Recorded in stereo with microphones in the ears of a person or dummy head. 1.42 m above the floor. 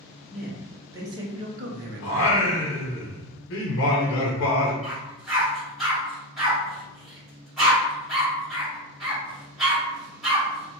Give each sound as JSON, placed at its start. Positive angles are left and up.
{"t": 0.3, "sound": "a man speaking", "side_deg": -5, "distance_m": 1.2}
{"t": 2.0, "sound": "singing", "side_deg": 70, "distance_m": 0.7}
{"t": 4.8, "sound": "a dog barking", "side_deg": -5, "distance_m": 1.7}